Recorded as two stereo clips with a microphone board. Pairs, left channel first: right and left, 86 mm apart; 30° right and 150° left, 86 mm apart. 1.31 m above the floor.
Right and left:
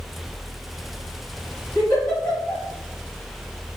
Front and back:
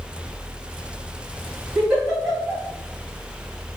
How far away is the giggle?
About 1.7 m.